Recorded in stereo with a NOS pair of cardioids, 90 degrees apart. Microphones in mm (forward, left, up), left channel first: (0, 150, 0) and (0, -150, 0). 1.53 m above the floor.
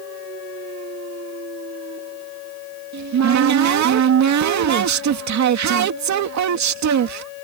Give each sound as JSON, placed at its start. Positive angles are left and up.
{"t": 2.9, "sound": "a cupboard door", "azimuth_deg": -65}